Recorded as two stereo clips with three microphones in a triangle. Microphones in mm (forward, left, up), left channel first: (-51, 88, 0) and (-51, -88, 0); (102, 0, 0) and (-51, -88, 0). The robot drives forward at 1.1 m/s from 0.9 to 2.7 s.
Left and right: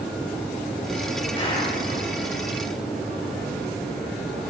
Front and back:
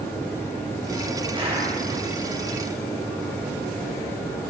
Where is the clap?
150° left, 6.5 m.